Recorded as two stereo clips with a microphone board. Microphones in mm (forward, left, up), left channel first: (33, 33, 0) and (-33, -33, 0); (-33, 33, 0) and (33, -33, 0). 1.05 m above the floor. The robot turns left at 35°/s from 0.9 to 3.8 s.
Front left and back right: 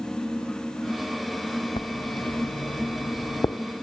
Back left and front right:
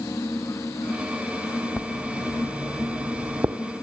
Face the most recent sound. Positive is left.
turn(degrees=-15)